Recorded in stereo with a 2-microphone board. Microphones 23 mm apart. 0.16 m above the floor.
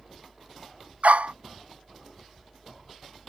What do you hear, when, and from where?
1.0 s a dog barking: 80° right